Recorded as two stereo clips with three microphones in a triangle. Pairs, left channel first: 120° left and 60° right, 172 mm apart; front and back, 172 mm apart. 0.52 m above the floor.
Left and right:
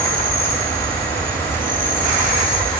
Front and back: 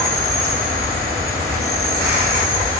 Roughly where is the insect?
Behind.